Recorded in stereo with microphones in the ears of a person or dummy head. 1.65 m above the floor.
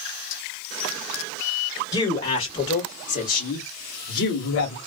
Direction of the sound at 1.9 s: 20° left (ahead or behind).